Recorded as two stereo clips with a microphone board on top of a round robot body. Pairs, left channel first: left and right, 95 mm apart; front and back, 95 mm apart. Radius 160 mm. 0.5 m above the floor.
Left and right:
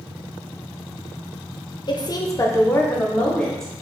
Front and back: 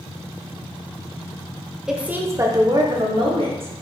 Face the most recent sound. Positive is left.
turn(degrees=175)